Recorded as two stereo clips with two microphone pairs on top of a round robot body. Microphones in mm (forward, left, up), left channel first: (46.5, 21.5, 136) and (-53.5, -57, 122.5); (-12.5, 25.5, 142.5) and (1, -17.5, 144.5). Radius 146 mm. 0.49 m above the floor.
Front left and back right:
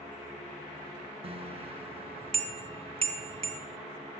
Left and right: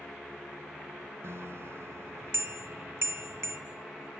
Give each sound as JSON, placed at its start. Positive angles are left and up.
{"t": 1.2, "sound": "a bicycle bell", "azimuth_deg": -100, "distance_m": 4.5}